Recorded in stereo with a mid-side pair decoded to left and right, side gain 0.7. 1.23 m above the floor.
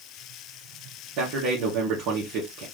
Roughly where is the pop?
I don't hear a pop.